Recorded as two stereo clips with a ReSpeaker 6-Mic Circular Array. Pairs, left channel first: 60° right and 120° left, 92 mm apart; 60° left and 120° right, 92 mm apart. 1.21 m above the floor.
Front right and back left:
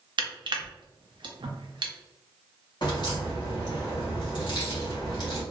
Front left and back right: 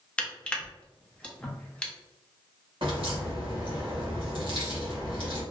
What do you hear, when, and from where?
0.2 s crushing: 135° left, 0.5 m
2.8 s a crack: 95° right, 1.1 m